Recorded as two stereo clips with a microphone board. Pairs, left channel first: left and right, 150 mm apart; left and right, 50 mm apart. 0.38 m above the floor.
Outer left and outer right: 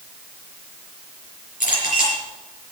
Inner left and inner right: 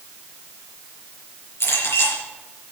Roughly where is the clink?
Left.